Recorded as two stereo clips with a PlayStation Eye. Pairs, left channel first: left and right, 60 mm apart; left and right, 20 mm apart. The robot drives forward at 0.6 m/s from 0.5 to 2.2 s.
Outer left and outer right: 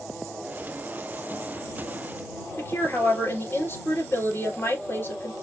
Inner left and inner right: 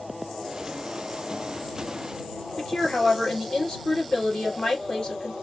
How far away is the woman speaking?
About 2.5 m.